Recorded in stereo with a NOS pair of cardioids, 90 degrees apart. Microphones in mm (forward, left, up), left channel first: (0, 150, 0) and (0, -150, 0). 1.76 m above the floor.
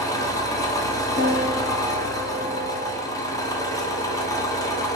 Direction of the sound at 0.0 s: 10° left.